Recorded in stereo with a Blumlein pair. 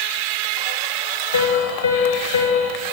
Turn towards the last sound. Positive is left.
turn(degrees=65)